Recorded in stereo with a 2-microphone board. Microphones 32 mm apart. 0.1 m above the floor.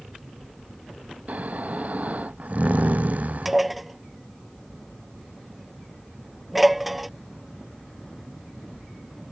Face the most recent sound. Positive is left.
turn(degrees=-5)  # may be behind; listen again after turning